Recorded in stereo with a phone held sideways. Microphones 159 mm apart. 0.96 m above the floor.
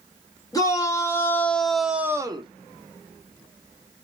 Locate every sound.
0.5 s a shout: 20° left (ahead or behind), 1.5 m; by 2.5 s 35° right (ahead or behind), 0.6 m